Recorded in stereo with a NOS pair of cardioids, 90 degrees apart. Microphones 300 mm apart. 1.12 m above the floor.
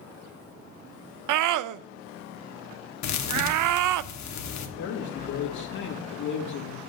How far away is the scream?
About 0.6 m.